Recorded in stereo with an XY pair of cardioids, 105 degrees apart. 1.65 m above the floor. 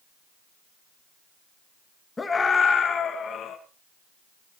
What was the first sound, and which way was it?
A scream, 20° left.